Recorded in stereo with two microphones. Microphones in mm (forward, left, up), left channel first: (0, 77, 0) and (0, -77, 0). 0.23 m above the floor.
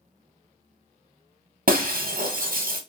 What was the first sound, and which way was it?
Breaking glass, 65° right (ahead or behind).